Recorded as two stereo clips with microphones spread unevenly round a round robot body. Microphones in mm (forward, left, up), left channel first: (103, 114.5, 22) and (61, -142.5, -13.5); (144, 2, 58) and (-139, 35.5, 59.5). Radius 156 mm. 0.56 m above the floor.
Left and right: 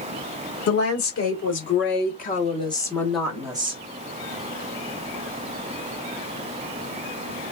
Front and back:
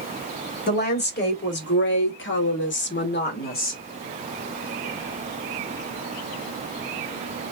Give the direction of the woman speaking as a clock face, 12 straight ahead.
10 o'clock.